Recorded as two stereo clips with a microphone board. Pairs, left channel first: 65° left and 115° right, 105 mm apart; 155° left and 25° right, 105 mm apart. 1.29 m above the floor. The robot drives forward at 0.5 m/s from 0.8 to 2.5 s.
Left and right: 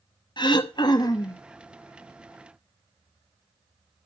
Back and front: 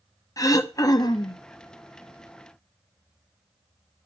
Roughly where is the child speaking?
I don't hear a child speaking.